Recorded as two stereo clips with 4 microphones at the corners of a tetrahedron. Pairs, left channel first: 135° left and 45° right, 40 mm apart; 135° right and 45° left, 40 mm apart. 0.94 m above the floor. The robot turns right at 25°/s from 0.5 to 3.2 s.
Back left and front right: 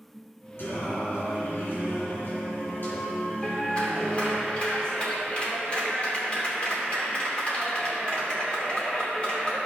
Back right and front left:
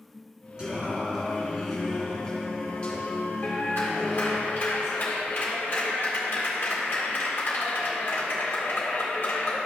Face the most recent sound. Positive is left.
turn(degrees=-165)